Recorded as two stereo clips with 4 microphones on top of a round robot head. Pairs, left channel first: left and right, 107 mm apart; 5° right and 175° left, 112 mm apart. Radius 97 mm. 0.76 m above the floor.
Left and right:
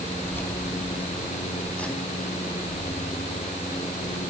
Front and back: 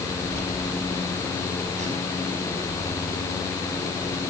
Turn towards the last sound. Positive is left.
turn(degrees=-175)